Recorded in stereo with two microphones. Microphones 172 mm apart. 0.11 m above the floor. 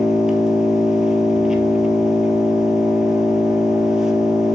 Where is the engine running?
5° right (ahead or behind), 1.2 m.